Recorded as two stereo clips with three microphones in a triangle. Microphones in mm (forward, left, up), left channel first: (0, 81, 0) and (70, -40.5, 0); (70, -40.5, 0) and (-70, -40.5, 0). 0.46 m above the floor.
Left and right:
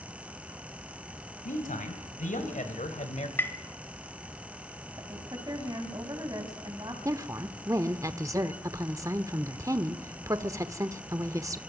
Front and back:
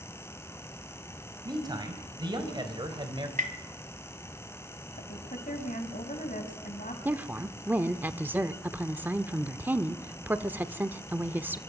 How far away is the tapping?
About 1.5 m.